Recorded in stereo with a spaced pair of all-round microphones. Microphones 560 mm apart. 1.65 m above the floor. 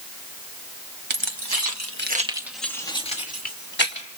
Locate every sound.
1.1 s keys jangling: 55° right (ahead or behind), 1.3 m; by 4.1 s 20° left (ahead or behind), 3 m